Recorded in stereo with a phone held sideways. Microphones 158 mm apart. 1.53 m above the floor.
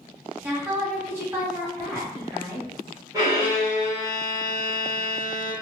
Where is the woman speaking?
15° right (ahead or behind), 1.4 m.